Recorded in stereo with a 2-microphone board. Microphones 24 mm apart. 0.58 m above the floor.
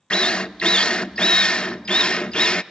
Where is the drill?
50° left (ahead or behind), 0.5 m.